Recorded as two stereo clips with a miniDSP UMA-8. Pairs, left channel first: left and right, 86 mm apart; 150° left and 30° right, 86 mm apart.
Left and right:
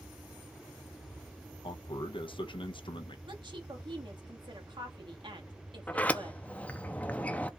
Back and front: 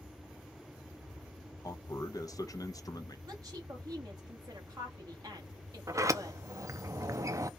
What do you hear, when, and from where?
1.6 s a man speaking: 105° left, 0.7 m
3.3 s a woman speaking: 75° right, 1.7 m
5.9 s a sliding door: 20° left, 0.6 m